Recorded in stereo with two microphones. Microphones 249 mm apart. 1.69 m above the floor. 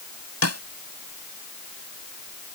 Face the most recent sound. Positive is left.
turn(degrees=80)